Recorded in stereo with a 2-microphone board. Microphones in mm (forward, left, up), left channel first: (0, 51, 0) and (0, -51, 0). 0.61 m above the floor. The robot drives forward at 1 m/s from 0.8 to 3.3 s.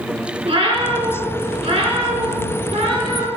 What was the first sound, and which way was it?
A cat meowing, 80° right.